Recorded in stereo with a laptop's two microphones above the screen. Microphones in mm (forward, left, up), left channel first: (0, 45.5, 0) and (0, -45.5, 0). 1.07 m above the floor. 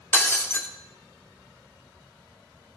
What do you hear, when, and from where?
0.1 s breaking glass: 25° left (ahead or behind), 0.7 m